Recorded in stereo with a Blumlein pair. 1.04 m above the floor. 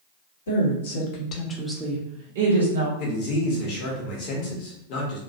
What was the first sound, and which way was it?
A woman speaking, 65° left.